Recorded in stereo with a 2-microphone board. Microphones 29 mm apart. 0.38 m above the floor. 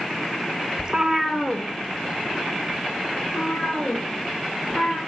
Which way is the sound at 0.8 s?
35° right (ahead or behind).